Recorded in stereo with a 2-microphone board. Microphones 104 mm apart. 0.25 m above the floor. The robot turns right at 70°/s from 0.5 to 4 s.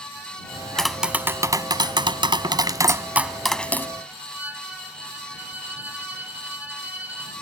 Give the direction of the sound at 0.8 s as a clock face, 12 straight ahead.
6 o'clock.